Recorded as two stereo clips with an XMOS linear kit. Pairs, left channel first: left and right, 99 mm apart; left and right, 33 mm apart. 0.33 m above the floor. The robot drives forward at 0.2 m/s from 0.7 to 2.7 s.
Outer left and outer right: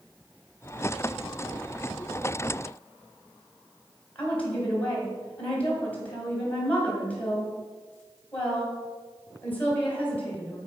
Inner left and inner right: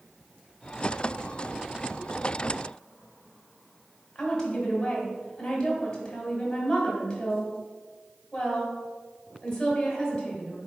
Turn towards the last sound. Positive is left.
turn(degrees=15)  # may be behind; listen again after turning